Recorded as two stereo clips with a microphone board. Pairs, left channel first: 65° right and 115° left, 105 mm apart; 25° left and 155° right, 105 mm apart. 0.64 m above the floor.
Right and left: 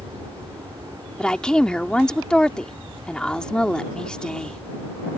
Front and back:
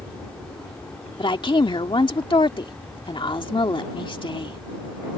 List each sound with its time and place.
0.0 s an aircraft: 85° left
1.2 s a woman speaking: 10° left